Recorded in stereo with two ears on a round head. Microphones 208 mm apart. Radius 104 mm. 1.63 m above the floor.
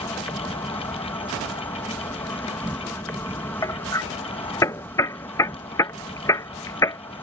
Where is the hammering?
15° left (ahead or behind).